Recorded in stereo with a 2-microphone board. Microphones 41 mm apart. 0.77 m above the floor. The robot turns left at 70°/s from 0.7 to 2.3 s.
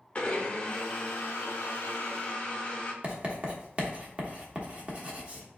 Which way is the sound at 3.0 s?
30° right (ahead or behind).